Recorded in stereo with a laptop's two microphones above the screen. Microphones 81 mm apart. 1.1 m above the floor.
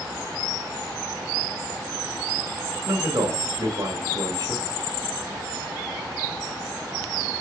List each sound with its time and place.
2.9 s a man speaking: 50° right (ahead or behind), 1.6 m